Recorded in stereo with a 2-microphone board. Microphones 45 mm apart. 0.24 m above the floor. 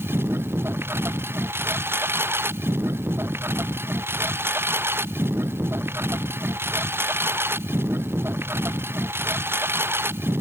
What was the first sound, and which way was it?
A lawn mower, 60° right (ahead or behind).